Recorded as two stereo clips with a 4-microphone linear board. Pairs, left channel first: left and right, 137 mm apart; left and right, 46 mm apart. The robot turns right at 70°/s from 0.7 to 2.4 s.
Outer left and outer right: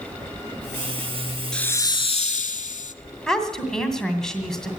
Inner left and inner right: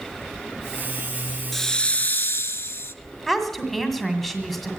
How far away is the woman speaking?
About 1.9 m.